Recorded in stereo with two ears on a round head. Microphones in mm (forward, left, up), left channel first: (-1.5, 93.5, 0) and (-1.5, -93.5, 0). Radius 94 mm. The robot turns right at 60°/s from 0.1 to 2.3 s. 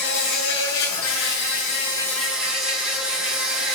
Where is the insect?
50° left, 8 m; by 3.8 s 175° right, 8 m.